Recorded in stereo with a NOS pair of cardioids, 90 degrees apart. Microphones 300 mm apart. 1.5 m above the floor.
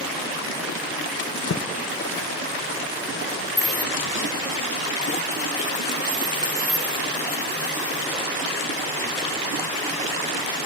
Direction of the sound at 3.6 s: 15° left.